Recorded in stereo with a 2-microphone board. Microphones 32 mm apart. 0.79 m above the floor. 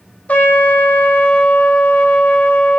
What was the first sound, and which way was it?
A trumpet, 50° left (ahead or behind).